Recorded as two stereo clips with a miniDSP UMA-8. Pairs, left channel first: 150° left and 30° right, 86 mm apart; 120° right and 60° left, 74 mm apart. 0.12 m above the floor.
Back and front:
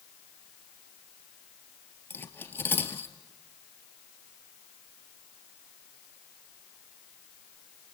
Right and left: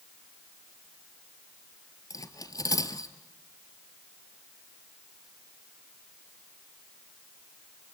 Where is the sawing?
I don't hear sawing.